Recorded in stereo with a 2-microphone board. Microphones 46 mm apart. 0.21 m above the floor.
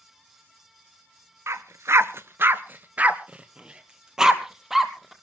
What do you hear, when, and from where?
1.5 s a dog barking: 80° right, 0.9 m; by 5.1 s 5° right (ahead or behind), 1.9 m